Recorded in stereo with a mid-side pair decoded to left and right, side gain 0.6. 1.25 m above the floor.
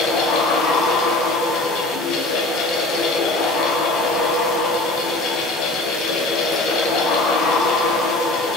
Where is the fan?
60° left, 0.8 m.